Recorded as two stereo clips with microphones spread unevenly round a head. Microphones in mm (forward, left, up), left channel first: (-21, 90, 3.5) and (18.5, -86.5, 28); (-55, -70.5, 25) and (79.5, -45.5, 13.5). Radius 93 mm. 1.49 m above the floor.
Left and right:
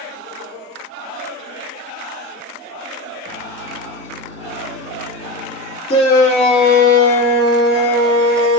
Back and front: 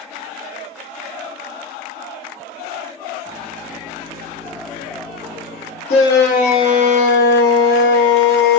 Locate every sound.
3.2 s a microwave: 130° left, 1.3 m
5.9 s a shout: 165° left, 0.7 m